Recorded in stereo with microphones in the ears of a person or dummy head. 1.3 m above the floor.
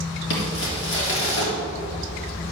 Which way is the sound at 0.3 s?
70° left (ahead or behind).